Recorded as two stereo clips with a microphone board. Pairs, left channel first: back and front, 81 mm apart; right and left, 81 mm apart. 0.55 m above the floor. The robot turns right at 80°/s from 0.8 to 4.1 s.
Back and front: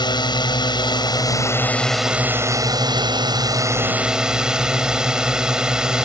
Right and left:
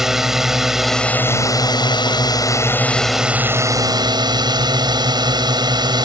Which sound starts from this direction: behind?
A drone, at 0.0 s.